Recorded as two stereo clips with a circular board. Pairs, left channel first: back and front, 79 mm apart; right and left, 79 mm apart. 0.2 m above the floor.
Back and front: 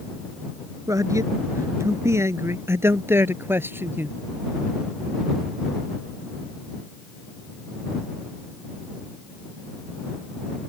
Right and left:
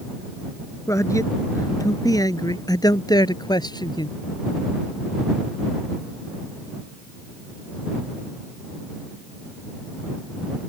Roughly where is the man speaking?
Ahead right.